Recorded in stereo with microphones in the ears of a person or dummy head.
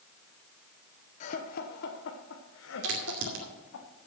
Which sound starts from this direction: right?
A crack, at 2.8 s.